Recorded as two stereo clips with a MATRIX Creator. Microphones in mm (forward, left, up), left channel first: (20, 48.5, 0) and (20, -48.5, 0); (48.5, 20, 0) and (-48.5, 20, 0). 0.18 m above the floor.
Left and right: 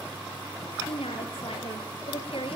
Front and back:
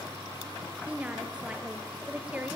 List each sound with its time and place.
0.9 s a woman speaking: 105° left, 3.5 m